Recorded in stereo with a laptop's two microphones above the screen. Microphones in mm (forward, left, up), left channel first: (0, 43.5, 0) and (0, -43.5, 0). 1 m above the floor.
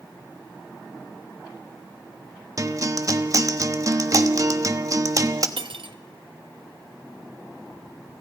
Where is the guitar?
40° right (ahead or behind), 1.3 m.